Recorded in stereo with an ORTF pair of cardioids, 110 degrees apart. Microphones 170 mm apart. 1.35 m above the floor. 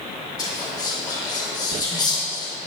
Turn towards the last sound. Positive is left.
turn(degrees=25)